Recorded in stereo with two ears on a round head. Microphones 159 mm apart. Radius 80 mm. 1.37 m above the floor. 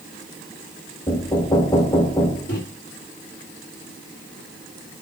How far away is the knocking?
About 1.6 m.